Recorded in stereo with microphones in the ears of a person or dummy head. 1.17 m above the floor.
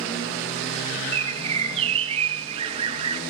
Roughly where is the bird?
Right.